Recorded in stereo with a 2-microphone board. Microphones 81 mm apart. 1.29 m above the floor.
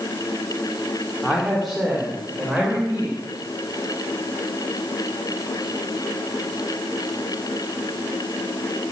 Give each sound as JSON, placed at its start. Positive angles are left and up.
{"t": 1.2, "sound": "a man speaking", "side_deg": 0, "distance_m": 3.0}